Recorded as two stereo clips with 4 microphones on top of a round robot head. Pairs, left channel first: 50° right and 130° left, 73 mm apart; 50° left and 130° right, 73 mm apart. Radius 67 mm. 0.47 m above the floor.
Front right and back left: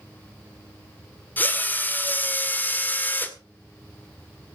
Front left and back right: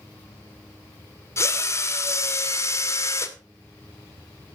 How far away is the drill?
About 2.0 m.